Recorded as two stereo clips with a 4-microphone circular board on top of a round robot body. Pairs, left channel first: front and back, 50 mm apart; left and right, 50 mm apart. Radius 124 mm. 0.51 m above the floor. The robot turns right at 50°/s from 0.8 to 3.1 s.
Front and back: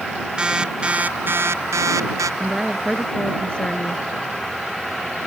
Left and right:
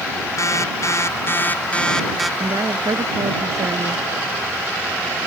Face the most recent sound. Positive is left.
turn(degrees=-70)